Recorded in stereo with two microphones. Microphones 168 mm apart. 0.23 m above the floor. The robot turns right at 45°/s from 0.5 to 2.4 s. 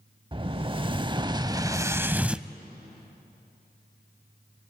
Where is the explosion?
95° right, 0.5 m; by 2.5 s 10° right, 0.5 m.